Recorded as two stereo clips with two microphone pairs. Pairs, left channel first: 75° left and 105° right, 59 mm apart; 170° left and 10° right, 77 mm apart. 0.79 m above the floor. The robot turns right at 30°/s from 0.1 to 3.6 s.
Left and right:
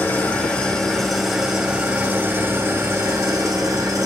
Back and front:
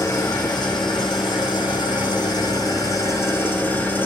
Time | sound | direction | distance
0.0 | an engine running | 130° left | 2 m